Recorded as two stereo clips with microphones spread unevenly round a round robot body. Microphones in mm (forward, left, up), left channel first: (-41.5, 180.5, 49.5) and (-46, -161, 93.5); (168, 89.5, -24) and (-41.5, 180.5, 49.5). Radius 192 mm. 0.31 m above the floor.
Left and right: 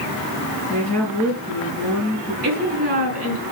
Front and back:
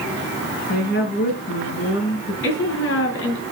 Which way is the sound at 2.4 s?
25° right.